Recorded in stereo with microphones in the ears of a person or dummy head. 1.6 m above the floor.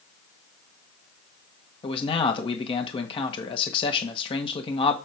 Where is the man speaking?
30° left (ahead or behind), 1.7 m.